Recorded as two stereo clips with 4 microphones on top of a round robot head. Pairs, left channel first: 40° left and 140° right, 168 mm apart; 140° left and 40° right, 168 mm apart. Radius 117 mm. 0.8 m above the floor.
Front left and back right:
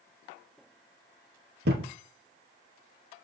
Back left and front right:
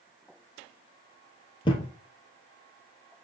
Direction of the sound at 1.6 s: 160° right.